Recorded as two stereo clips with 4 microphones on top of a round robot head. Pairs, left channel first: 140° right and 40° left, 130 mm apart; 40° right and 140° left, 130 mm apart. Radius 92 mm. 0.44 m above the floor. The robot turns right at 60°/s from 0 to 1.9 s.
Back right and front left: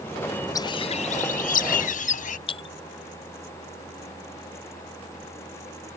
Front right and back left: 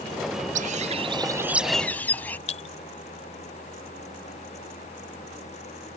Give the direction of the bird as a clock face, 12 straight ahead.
7 o'clock.